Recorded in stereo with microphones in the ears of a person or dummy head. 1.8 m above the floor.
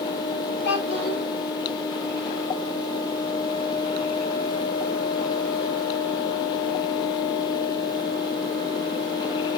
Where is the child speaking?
60° left (ahead or behind), 3.5 m.